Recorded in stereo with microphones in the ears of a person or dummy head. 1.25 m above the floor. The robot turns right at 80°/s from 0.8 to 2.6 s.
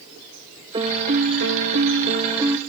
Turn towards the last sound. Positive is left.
turn(degrees=-10)